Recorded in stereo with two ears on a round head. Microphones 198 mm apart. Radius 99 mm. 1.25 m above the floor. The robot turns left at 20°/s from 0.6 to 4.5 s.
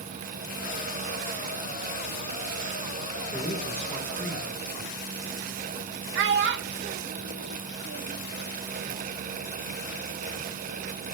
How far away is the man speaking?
About 4.5 m.